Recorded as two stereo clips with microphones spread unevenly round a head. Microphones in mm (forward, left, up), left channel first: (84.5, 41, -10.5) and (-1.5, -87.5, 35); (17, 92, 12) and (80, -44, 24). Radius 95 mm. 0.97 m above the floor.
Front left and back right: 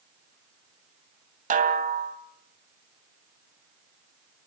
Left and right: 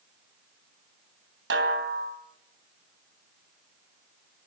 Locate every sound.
1.5 s a snare drum: 90° right, 2.5 m